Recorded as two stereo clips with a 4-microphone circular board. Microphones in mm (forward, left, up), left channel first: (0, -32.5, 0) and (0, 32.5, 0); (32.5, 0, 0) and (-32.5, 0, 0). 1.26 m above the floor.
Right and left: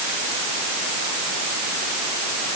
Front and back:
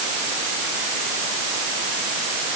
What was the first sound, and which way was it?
Only background noise.